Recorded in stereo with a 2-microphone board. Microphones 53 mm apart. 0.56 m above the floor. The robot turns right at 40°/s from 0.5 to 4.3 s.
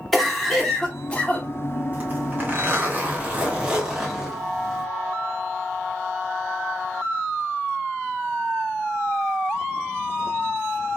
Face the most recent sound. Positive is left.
turn(degrees=-5)